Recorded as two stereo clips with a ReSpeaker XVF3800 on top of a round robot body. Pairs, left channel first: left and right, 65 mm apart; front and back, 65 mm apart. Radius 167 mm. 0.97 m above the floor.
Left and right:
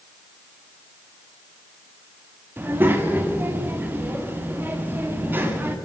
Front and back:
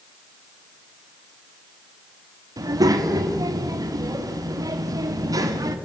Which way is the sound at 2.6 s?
150° right.